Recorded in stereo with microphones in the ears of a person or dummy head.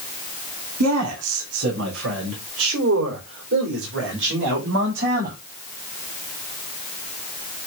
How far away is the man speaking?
About 3 m.